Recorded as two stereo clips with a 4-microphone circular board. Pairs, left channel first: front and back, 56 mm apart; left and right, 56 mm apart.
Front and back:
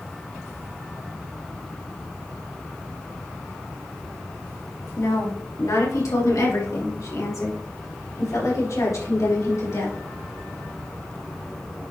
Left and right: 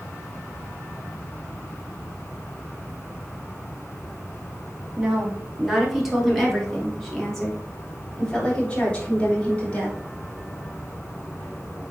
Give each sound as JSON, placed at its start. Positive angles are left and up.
{"t": 5.0, "sound": "a woman speaking", "azimuth_deg": -15, "distance_m": 2.5}